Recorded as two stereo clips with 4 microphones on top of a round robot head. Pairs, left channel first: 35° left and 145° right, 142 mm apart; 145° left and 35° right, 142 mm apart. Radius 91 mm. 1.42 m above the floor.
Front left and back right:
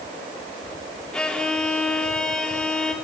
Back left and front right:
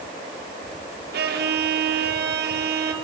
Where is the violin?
50° right, 3 m.